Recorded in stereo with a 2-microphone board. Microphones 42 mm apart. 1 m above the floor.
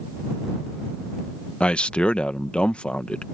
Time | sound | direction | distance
1.6 | a man speaking | 30° left (ahead or behind) | ?